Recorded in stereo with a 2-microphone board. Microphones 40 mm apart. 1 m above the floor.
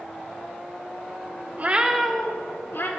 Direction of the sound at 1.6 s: 40° right (ahead or behind).